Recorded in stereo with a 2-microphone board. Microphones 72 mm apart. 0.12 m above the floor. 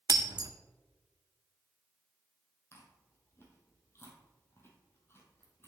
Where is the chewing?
35° left (ahead or behind), 1.5 m.